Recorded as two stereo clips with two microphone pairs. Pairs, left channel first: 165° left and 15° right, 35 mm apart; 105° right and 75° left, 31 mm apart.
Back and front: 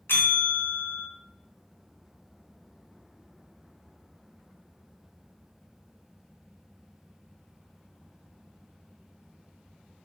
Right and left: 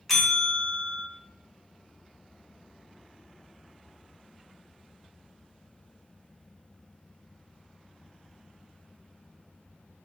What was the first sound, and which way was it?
A bell, 170° left.